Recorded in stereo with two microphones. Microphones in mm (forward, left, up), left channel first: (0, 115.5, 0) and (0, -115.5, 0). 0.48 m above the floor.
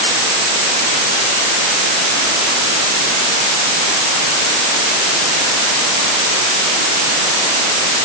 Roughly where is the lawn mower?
No lawn mower in this recording.